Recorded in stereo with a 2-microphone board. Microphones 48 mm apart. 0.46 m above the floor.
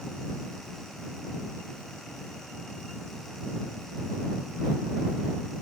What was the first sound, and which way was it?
Only background noise.